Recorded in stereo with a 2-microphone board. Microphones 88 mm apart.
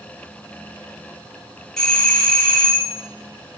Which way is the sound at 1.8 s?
10° left (ahead or behind).